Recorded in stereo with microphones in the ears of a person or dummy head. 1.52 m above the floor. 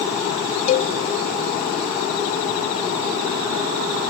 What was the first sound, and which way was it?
A cowbell, 40° left (ahead or behind).